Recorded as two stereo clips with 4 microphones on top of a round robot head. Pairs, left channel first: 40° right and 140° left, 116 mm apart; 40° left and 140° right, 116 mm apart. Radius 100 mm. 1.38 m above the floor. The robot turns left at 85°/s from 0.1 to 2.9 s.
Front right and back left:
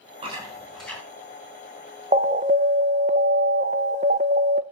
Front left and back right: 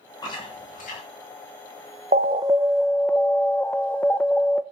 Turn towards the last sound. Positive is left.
turn(degrees=120)